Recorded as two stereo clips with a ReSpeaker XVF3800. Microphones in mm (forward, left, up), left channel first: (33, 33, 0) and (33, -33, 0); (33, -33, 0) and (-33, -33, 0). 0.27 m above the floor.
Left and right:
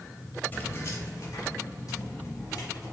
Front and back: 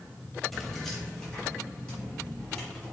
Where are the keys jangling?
85° left, 0.8 m; by 2.9 s 70° left, 2.5 m.